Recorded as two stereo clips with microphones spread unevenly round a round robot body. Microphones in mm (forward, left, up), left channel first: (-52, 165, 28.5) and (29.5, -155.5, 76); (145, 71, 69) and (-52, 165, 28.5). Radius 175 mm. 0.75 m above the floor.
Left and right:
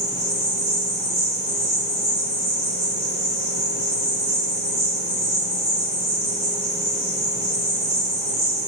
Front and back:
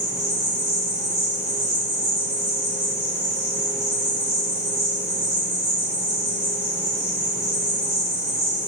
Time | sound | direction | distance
0.0 | an insect | 140° right | 1.7 m